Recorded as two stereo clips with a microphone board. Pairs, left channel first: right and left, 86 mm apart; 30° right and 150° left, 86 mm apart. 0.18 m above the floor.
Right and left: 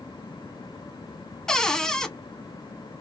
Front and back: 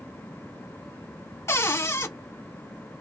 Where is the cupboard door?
15° right, 0.5 m.